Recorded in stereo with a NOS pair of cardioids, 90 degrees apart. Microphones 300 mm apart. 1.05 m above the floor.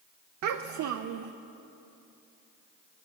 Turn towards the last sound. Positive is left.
turn(degrees=-65)